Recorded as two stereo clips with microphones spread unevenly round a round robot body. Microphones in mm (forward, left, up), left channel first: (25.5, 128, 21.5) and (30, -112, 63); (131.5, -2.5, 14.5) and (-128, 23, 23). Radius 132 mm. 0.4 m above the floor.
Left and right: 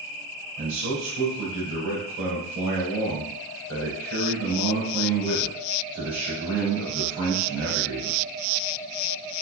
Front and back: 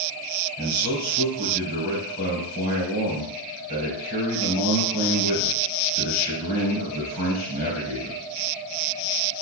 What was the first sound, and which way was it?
A man speaking, 50° right.